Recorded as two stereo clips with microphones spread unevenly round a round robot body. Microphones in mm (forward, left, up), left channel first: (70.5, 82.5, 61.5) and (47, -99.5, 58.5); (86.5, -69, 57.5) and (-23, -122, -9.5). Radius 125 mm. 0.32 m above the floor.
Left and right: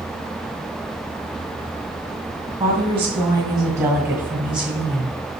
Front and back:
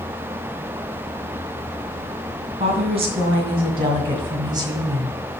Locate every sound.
2.6 s a woman speaking: 160° right, 2.5 m; by 5.2 s 160° left, 1.4 m